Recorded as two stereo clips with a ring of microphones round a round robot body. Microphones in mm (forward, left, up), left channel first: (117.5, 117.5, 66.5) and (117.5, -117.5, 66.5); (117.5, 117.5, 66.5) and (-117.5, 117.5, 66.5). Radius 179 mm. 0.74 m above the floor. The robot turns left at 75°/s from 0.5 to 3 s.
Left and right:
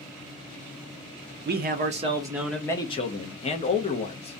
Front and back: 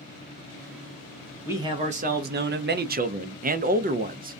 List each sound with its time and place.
1.4 s a man speaking: 100° right, 0.6 m; by 4.4 s 140° left, 0.6 m